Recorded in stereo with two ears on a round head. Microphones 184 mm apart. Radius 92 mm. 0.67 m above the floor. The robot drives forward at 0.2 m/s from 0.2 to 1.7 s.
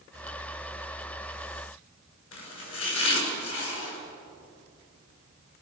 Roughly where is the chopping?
Left.